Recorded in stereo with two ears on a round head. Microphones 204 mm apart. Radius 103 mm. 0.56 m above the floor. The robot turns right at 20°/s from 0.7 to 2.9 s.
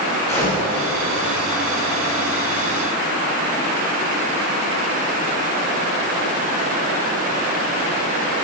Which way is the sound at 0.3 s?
10° left (ahead or behind).